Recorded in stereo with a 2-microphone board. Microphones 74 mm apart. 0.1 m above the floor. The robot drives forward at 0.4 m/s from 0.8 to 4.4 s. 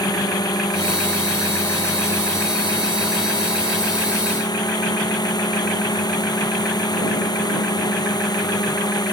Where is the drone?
60° left (ahead or behind); by 9.1 s 65° left (ahead or behind).